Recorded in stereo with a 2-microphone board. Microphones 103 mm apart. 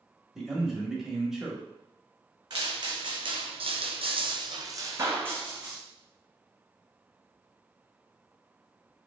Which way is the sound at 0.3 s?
5° right (ahead or behind).